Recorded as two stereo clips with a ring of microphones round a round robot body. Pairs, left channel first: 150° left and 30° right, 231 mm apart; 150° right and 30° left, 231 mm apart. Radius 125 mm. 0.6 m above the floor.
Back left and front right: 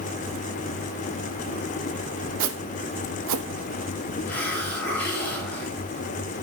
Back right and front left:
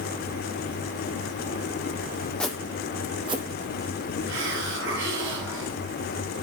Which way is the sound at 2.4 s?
65° right.